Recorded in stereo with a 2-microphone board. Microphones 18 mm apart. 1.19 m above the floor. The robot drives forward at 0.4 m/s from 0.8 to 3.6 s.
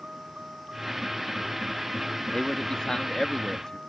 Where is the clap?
No clap in this recording.